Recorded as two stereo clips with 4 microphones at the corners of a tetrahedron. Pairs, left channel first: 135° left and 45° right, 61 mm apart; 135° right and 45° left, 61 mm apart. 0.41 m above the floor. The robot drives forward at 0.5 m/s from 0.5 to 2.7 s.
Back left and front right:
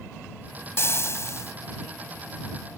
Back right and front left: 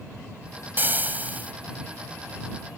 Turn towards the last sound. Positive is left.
turn(degrees=115)